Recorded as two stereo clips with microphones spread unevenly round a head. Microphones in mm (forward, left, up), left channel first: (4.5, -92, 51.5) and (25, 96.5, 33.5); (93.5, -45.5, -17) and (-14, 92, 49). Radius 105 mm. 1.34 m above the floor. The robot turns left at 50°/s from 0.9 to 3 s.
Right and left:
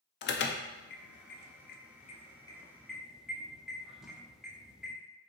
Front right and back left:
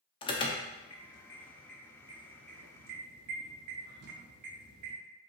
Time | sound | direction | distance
0.2 | an alarm | 90° right | 0.6 m